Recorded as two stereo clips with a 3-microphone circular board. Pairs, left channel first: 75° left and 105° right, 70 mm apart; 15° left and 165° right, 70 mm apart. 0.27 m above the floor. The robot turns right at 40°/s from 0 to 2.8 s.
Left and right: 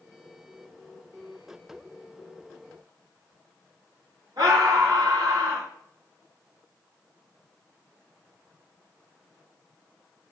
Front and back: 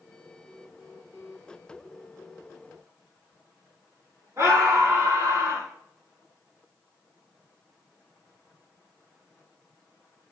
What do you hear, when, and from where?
4.4 s a scream: 120° right, 3 m